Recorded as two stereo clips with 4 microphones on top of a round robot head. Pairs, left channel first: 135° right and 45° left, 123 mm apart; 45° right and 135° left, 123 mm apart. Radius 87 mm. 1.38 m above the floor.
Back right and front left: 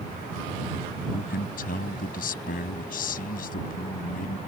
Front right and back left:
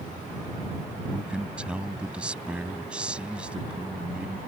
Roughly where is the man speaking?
Behind right.